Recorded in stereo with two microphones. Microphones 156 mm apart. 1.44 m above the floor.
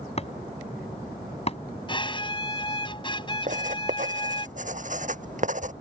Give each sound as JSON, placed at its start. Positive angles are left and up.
{"t": 0.2, "sound": "chopping", "side_deg": 40}
{"t": 1.9, "sound": "a violin", "side_deg": 30}
{"t": 3.5, "sound": "writing", "side_deg": -50}